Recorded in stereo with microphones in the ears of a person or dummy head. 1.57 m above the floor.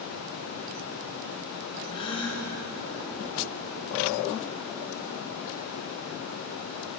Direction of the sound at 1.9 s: 35° left (ahead or behind).